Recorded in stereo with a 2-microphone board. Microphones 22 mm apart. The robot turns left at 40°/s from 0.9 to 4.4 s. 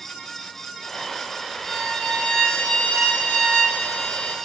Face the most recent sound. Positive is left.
turn(degrees=45)